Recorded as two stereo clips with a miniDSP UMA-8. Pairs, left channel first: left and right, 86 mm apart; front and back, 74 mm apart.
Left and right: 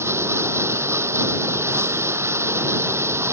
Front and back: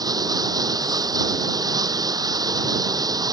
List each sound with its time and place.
0.0 s running water: 150° right